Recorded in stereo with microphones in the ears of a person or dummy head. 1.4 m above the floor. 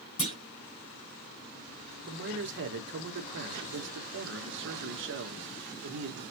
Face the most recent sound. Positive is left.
turn(degrees=-60)  # may be behind; listen again after turning